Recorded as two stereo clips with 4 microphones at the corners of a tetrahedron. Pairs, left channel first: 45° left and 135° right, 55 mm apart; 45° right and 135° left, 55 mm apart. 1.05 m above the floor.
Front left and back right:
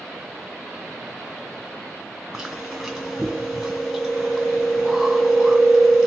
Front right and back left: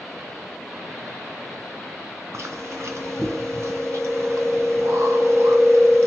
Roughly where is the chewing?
Behind left.